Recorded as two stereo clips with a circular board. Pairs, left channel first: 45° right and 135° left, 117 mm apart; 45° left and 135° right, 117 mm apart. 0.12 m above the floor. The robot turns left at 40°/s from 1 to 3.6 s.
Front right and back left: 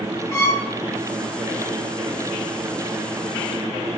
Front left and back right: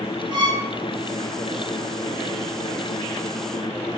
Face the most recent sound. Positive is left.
turn(degrees=155)